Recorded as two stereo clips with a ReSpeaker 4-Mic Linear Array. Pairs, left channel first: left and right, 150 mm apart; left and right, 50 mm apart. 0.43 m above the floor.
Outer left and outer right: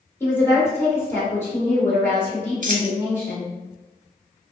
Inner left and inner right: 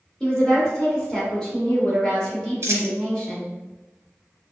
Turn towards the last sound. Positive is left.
turn(degrees=-65)  # may be behind; listen again after turning